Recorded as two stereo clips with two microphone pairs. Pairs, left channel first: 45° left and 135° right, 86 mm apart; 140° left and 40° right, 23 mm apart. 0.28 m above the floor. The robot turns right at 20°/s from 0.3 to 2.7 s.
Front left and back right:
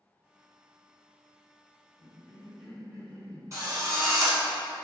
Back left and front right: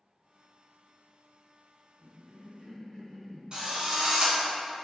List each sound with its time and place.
2.0 s a cough: 125° left, 1.6 m; by 3.4 s 140° left, 1.6 m
3.5 s a drill: 85° right, 1.0 m